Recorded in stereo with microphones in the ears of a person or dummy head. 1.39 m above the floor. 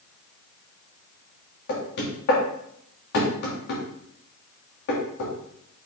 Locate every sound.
1.7 s knocking: 60° left (ahead or behind), 2 m